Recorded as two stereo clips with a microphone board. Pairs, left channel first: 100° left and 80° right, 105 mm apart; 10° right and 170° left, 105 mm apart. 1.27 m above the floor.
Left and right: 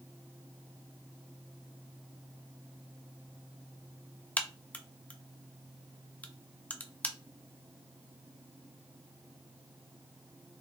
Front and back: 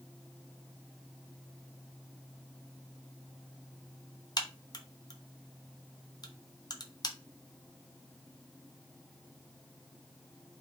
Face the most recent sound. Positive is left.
turn(degrees=25)